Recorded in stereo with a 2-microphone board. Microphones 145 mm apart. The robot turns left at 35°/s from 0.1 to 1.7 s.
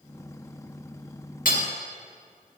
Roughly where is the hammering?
Left.